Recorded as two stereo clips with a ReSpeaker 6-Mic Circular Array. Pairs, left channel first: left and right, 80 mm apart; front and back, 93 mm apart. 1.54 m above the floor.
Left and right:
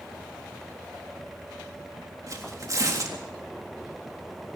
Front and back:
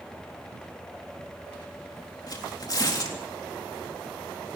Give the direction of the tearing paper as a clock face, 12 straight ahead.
1 o'clock.